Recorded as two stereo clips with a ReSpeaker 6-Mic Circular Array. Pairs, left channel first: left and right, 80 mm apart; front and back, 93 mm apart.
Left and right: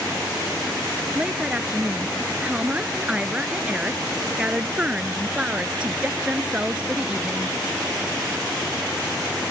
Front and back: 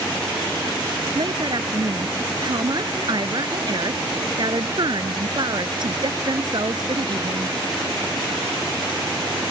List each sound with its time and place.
1.1 s a woman speaking: 165° right